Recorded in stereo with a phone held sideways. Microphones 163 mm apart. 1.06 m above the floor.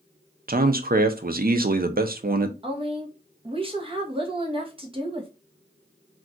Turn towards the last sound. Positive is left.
turn(degrees=-35)  # may be behind; listen again after turning